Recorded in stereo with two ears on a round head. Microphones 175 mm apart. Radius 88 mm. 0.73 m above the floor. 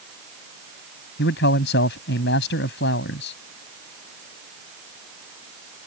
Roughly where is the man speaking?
Left.